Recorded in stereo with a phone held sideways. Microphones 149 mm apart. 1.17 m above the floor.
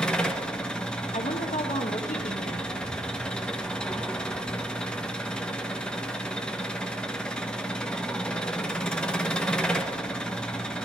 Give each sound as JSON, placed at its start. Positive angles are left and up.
{"t": 0.0, "sound": "an engine running", "side_deg": 5, "distance_m": 1.1}
{"t": 1.1, "sound": "a woman speaking", "side_deg": 65, "distance_m": 1.1}